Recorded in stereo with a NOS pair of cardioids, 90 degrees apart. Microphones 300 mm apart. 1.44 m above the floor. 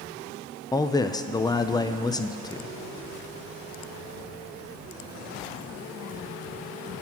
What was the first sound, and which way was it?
A man speaking, 10° left.